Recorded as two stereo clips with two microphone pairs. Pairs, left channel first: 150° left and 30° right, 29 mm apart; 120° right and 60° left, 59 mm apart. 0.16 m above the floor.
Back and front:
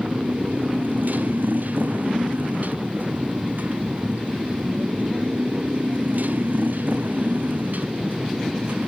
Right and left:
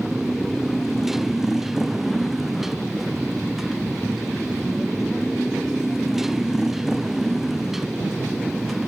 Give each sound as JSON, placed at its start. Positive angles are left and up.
{"t": 0.0, "sound": "a motorcycle", "azimuth_deg": -25}